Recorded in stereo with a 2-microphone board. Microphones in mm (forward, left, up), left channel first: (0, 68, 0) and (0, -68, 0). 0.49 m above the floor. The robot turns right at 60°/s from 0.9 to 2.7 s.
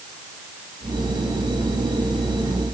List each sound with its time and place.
Only background noise.